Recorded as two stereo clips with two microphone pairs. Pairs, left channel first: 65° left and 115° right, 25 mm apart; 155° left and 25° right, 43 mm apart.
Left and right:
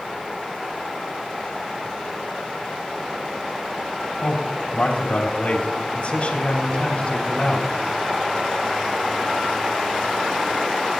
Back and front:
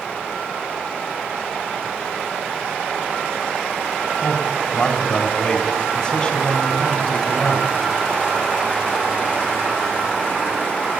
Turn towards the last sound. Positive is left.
turn(degrees=105)